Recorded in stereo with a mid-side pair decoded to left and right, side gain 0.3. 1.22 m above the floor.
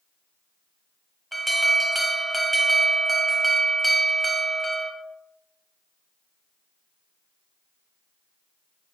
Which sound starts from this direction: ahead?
An alarm, at 1.3 s.